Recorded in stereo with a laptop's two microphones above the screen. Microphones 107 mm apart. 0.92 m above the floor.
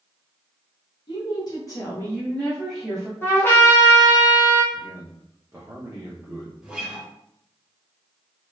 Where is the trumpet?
20° left (ahead or behind), 1.4 m.